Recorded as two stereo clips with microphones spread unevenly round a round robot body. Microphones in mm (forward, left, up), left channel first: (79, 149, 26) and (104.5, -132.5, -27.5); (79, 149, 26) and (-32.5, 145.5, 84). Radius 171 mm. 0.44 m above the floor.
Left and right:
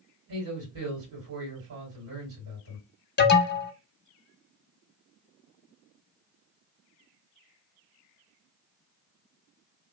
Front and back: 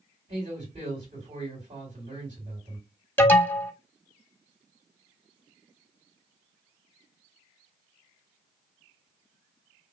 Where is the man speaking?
105° right, 2 m.